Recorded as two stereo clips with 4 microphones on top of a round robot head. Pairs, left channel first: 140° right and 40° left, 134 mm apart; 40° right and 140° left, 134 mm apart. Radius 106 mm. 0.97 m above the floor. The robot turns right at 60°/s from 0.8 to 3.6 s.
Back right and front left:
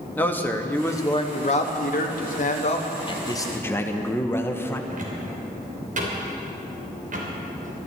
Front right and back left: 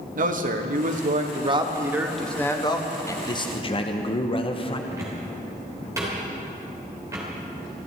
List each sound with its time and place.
0.1 s a man speaking: 145° left, 1.5 m; by 3.0 s 85° right, 1.5 m
3.1 s a man speaking: 100° right, 1.2 m; by 4.8 s 70° right, 1.2 m
4.9 s a cupboard door: 70° left, 3 m